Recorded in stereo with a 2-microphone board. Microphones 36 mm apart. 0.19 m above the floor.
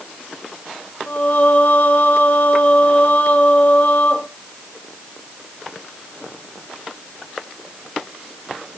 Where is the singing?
45° left (ahead or behind), 0.9 m.